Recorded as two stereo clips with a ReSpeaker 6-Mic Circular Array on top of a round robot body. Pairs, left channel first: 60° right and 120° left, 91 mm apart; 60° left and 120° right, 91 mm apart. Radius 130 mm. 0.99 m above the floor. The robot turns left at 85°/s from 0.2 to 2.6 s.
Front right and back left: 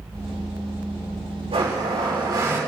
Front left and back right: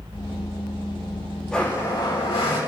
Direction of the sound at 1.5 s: 145° left.